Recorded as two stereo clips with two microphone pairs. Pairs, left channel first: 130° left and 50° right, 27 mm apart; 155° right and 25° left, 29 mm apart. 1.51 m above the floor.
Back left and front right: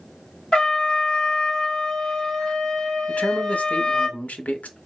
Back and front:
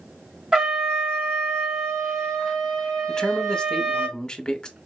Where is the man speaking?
145° left, 0.8 m.